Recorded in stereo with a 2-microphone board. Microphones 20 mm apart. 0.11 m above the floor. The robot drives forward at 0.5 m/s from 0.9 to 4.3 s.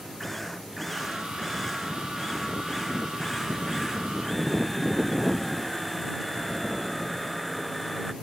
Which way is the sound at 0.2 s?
5° left (ahead or behind).